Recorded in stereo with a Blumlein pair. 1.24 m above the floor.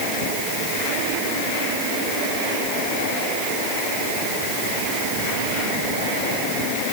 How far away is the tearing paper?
No tearing paper in this recording.